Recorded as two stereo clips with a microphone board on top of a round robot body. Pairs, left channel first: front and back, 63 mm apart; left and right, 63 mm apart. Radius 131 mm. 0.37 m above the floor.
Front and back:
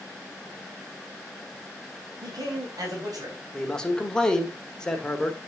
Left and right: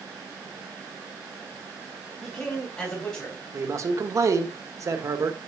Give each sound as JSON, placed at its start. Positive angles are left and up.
{"t": 2.2, "sound": "a man speaking", "azimuth_deg": 160, "distance_m": 3.0}
{"t": 3.5, "sound": "a man speaking", "azimuth_deg": -75, "distance_m": 1.7}